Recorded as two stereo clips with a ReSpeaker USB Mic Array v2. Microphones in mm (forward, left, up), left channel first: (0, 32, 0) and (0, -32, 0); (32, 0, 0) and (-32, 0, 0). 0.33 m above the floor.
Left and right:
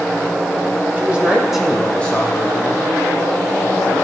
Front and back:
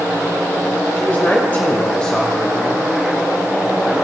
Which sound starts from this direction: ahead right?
A man speaking, at 1.0 s.